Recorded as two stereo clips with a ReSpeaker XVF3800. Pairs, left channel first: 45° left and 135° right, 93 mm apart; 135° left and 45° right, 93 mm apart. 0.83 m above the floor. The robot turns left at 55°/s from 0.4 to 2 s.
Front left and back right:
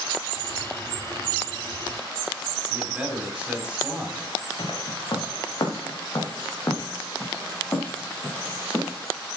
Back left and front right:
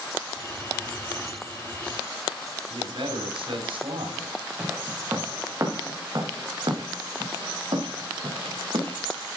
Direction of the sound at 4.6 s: 25° left.